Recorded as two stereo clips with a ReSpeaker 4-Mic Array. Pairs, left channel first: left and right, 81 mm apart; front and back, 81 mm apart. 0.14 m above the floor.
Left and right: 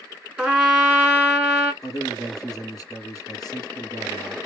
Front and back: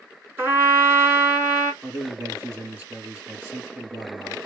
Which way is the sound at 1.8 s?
125° left.